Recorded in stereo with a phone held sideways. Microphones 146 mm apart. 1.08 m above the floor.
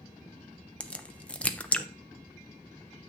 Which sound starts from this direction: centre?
A crack, at 0.8 s.